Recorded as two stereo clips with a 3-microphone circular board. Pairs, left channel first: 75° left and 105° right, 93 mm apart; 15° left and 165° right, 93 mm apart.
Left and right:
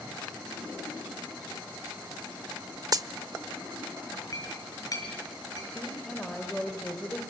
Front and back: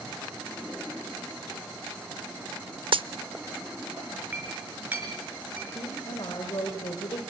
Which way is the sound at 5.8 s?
10° right.